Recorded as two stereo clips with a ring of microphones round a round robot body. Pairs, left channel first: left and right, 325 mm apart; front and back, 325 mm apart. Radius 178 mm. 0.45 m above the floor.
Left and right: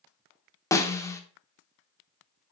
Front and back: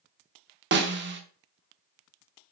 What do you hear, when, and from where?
0.7 s a snare drum: 165° left, 0.9 m